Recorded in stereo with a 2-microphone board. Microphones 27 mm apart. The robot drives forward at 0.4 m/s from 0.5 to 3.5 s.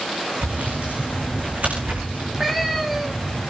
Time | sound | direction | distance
0.4 | sawing | 70° right (ahead or behind) | 9 m
2.1 | a cat meowing | 10° right (ahead or behind) | 4 m